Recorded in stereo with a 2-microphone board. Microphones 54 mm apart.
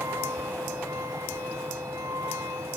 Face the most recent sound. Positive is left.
turn(degrees=-85)